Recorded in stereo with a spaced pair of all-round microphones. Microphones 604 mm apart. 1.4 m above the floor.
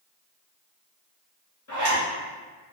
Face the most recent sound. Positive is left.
turn(degrees=30)  # may be behind; listen again after turning